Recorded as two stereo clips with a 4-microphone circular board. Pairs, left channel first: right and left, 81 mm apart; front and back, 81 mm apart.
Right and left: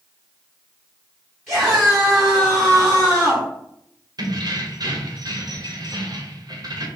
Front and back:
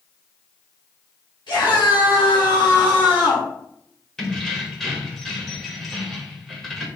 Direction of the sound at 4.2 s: 85° left.